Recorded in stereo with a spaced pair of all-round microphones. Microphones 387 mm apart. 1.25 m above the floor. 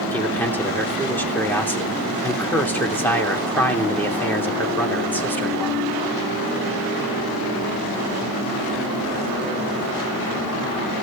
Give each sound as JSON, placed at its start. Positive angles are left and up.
{"t": 0.1, "sound": "a man speaking", "side_deg": 5, "distance_m": 3.0}